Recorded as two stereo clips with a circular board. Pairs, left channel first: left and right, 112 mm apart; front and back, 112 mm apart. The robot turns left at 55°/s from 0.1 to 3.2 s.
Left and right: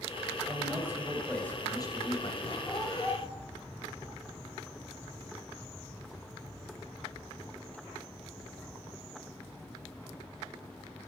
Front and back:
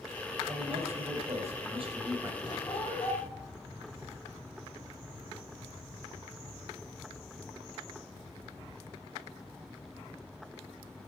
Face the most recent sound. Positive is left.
turn(degrees=15)